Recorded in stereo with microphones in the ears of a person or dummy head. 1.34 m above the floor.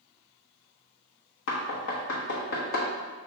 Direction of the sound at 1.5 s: 60° left (ahead or behind).